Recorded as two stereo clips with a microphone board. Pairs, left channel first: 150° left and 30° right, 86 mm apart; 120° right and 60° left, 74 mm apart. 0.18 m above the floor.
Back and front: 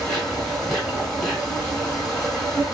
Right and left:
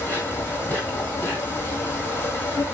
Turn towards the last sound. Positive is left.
turn(degrees=-130)